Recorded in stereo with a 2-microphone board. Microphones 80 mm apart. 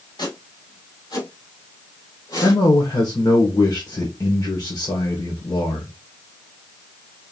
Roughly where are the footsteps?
Left.